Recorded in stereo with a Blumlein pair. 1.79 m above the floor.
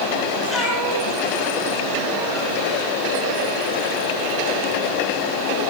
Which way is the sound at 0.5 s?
5° left.